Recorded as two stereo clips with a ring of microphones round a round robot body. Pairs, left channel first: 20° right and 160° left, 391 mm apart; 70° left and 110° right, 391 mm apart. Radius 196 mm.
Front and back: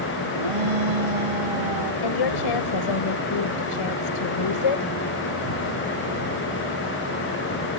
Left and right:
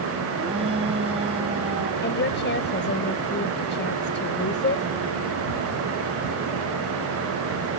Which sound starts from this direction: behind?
A shout, at 0.4 s.